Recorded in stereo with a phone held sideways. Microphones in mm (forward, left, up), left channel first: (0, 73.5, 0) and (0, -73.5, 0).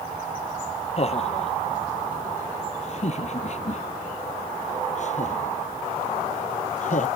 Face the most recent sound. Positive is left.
turn(degrees=55)  # may be behind; listen again after turning